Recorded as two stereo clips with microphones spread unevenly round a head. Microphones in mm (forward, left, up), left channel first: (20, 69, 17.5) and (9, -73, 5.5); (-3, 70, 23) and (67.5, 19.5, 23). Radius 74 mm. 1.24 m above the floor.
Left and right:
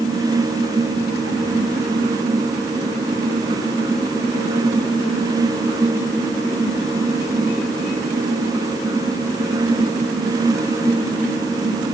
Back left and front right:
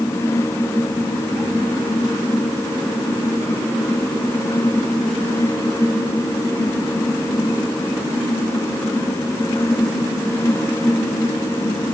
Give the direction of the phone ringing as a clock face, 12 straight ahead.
I don't hear a phone ringing.